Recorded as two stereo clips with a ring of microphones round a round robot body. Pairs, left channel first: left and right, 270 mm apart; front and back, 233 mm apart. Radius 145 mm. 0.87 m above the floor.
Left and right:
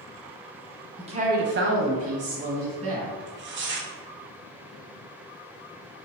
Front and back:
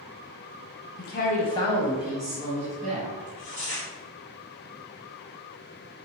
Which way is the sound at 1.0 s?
25° right.